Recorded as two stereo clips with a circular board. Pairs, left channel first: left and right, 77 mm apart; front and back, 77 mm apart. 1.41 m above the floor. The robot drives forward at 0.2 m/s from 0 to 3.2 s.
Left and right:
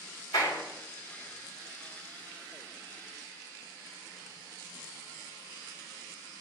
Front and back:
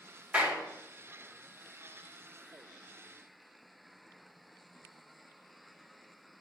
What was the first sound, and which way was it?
A clap, 110° left.